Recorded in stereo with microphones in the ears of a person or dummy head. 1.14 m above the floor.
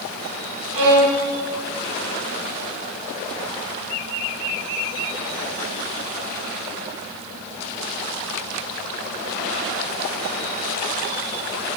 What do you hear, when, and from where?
0.7 s a violin: 75° right (ahead or behind), 2.5 m